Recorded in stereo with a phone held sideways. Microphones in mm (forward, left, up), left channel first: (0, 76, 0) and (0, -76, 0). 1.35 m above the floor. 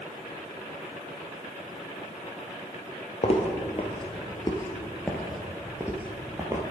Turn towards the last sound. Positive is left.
turn(degrees=-25)  # may be behind; listen again after turning